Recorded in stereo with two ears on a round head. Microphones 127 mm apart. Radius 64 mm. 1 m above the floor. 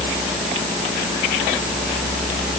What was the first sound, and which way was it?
Only background noise.